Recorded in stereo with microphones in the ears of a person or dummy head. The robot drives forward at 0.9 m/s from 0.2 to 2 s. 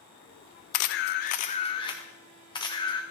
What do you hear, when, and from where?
0.7 s a camera shutter: 55° left (ahead or behind), 0.5 m; by 3.0 s 25° left (ahead or behind), 1.1 m